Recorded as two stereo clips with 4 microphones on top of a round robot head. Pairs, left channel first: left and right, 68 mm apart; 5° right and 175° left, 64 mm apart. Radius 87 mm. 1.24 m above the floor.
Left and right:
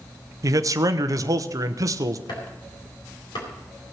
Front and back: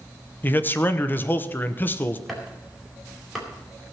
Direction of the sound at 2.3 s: 85° left.